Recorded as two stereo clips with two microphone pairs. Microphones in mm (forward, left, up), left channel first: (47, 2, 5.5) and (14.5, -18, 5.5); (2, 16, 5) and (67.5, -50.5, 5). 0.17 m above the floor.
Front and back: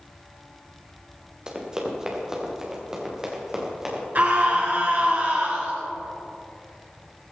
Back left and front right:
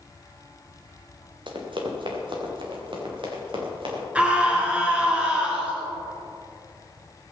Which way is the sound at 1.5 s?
75° right.